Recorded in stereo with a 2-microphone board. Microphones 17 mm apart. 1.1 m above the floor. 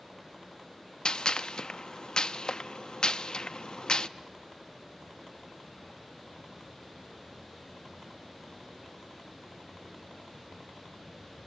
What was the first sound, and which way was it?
A gunshot, 45° left (ahead or behind).